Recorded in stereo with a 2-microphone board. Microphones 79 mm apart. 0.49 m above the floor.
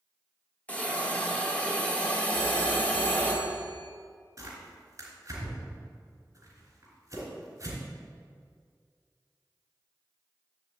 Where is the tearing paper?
40° right (ahead or behind), 3.5 m.